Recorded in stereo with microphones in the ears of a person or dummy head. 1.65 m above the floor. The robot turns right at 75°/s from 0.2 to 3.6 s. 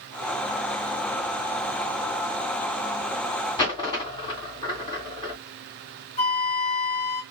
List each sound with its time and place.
3.6 s a dropped coin: 30° left (ahead or behind), 2 m
6.2 s a flute: 40° left (ahead or behind), 0.8 m